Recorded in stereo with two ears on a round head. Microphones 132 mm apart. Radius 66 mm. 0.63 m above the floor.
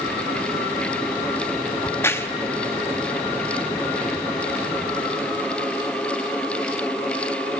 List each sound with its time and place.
1.8 s a crack: 15° left (ahead or behind), 0.9 m